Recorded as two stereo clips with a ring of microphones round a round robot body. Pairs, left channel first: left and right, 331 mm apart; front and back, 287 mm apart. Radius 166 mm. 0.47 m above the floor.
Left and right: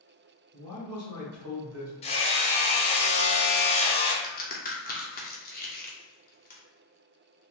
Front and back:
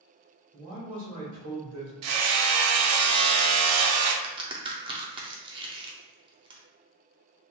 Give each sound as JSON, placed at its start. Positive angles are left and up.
{"t": 0.5, "sound": "a man speaking", "azimuth_deg": -135, "distance_m": 1.4}
{"t": 2.0, "sound": "hammering", "azimuth_deg": 160, "distance_m": 0.5}
{"t": 4.2, "sound": "a crack", "azimuth_deg": 120, "distance_m": 0.6}